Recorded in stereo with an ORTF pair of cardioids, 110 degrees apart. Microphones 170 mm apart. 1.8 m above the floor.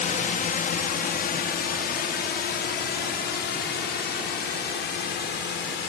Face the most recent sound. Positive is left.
turn(degrees=80)